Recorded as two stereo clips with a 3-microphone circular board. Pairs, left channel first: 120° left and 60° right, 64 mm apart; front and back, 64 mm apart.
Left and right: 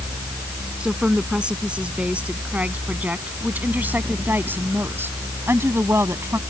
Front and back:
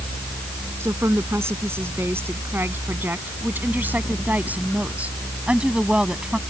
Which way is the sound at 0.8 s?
135° right.